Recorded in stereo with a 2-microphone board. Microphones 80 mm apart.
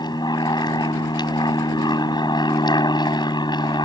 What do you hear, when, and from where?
0.0 s an aircraft: 70° left (ahead or behind)